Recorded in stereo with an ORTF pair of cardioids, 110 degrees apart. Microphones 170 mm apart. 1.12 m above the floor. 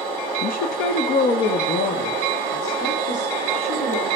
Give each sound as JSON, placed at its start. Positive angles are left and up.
{"t": 0.4, "sound": "a woman speaking", "azimuth_deg": 65, "distance_m": 0.7}